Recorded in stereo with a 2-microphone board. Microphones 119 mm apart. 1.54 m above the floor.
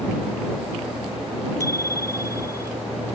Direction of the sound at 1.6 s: 25° left (ahead or behind).